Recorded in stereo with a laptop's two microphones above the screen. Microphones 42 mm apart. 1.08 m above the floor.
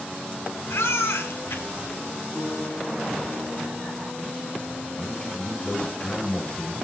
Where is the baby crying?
80° left, 2 m.